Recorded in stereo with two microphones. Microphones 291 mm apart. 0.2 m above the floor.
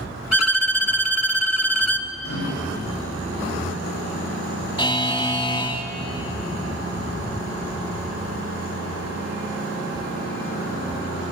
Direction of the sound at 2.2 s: 50° left (ahead or behind).